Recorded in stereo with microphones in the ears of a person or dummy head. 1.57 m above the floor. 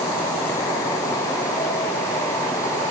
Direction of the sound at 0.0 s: 15° left (ahead or behind).